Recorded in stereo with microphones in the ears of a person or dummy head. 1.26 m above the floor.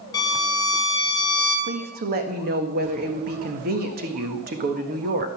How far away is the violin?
About 3.5 m.